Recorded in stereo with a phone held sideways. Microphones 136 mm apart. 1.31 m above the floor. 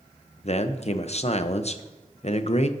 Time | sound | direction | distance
0.4 | a man speaking | 50° left (ahead or behind) | 0.8 m